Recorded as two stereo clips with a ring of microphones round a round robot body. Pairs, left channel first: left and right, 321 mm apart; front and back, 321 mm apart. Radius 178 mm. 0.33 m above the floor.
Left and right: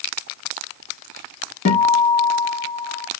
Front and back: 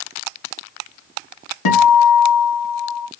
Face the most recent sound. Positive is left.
turn(degrees=20)